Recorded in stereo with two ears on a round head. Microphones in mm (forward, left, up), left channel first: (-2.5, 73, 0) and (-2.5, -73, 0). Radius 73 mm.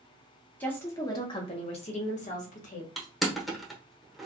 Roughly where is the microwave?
No microwave in this recording.